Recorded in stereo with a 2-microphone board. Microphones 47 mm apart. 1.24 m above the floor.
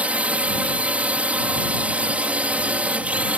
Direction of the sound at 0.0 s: 30° right (ahead or behind).